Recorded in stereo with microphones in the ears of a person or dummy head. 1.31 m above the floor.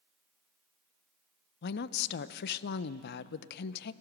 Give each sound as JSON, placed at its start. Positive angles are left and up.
{"t": 1.6, "sound": "a woman speaking", "side_deg": 55, "distance_m": 0.6}